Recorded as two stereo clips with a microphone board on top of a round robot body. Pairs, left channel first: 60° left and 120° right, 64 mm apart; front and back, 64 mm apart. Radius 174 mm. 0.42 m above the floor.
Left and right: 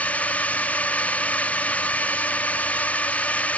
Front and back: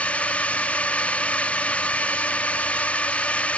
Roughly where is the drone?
Ahead left.